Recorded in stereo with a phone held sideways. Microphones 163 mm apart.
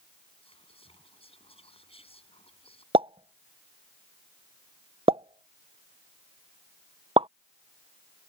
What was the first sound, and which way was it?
Whispering, 35° left (ahead or behind).